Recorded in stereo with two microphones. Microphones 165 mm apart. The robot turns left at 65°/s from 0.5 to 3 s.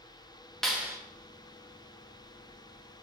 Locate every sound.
0.6 s a clap: 5° left (ahead or behind), 1.1 m; by 1.0 s 20° right (ahead or behind), 1.1 m